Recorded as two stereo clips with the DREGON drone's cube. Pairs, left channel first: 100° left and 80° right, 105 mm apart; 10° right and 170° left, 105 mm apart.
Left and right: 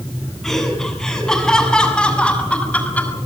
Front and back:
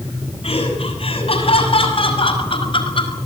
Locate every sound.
0.4 s laughter: 15° left, 7.5 m; by 3.2 s 25° left, 4.5 m